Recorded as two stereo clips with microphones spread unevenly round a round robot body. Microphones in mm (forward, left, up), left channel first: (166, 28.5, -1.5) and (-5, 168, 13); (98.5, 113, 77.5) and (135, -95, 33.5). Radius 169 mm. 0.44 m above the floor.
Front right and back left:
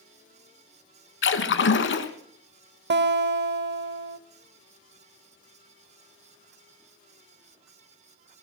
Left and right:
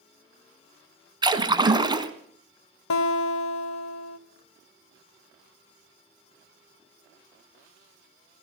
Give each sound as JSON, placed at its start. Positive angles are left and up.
{"t": 1.2, "sound": "a splash", "azimuth_deg": -10, "distance_m": 1.5}
{"t": 2.9, "sound": "a guitar", "azimuth_deg": 105, "distance_m": 1.3}